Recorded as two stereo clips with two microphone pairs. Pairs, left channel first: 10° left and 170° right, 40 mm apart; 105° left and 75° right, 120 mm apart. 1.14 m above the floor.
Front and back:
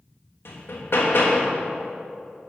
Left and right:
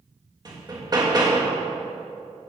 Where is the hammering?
15° right, 1.4 m.